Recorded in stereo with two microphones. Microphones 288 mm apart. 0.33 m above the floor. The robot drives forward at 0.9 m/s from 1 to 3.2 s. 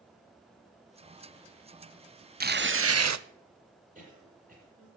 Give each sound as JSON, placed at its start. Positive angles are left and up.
{"t": 2.4, "sound": "tearing paper", "side_deg": -30, "distance_m": 0.9}
{"t": 4.0, "sound": "a cough", "side_deg": -30, "distance_m": 8.0}